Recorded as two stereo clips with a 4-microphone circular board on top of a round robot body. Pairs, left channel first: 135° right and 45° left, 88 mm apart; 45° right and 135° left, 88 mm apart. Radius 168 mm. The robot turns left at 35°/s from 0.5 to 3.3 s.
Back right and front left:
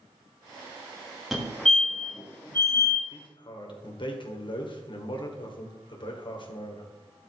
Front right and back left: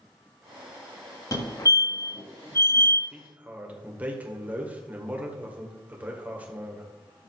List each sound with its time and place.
1.3 s a fire alarm: 40° right, 2 m; by 3.0 s 100° right, 2 m
3.1 s a man speaking: 145° right, 2 m; by 6.9 s 150° right, 2 m